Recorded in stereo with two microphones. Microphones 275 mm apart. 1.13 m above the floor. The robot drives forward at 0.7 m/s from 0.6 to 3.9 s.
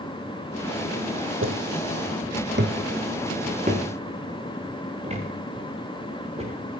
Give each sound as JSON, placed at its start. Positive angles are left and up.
{"t": 1.4, "sound": "footsteps", "side_deg": -45, "distance_m": 1.7}